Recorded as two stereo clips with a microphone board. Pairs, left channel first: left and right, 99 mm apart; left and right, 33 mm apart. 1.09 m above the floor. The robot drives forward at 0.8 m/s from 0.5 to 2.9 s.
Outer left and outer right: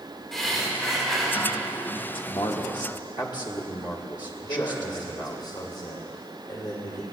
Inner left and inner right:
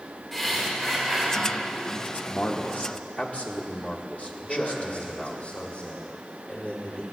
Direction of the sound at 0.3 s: 5° left (ahead or behind).